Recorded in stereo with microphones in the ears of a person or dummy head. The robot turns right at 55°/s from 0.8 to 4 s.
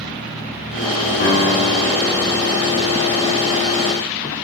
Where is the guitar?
55° left, 6.5 m; by 2.9 s 150° left, 6.5 m.